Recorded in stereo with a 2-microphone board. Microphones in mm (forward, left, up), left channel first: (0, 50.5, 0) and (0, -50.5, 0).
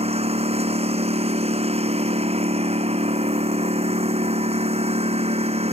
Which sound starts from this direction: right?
A lawn mower, at 0.0 s.